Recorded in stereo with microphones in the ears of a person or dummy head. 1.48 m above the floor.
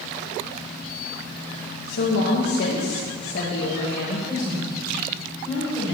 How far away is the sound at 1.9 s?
About 2.5 m.